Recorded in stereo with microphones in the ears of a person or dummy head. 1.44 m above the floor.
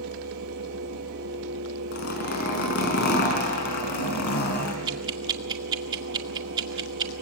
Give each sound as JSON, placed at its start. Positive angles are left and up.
{"t": 0.0, "sound": "a fan", "side_deg": -75, "distance_m": 3.5}
{"t": 1.9, "sound": "a zipper", "side_deg": 50, "distance_m": 5.0}
{"t": 4.9, "sound": "ticking", "side_deg": -25, "distance_m": 2.0}